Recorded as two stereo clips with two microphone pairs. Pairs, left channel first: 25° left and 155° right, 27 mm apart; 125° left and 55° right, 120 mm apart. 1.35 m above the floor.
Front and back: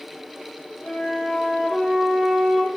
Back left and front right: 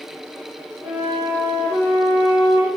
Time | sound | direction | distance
0.8 | a flute | 70° right | 1.0 m